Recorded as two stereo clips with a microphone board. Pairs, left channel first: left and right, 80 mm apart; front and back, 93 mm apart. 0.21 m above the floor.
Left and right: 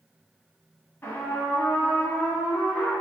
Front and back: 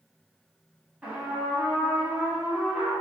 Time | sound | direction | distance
1.0 | a trumpet | 115° left | 0.8 m